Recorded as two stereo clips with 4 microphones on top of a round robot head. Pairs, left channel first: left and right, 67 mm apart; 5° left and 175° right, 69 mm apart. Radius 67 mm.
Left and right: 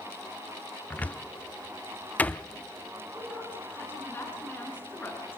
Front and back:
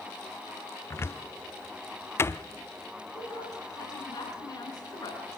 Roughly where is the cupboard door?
Ahead left.